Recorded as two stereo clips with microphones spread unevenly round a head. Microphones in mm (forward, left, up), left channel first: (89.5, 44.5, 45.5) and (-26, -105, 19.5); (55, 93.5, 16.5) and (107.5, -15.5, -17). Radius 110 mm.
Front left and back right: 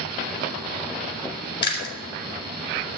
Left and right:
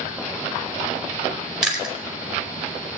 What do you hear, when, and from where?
1.6 s chewing: 25° left, 4.5 m